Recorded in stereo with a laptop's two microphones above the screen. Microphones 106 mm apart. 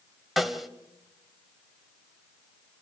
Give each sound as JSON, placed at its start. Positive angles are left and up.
{"t": 0.4, "sound": "a snare drum", "side_deg": 0, "distance_m": 1.8}